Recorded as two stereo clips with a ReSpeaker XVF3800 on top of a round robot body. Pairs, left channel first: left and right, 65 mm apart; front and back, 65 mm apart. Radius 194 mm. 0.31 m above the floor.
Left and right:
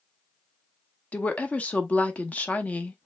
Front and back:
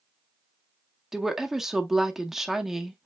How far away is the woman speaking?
About 1.2 m.